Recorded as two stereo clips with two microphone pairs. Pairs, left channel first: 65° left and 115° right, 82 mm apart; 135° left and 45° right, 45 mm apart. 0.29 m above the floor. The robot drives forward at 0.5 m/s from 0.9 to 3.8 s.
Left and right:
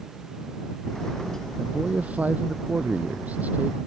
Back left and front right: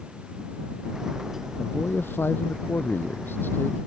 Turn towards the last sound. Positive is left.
turn(degrees=175)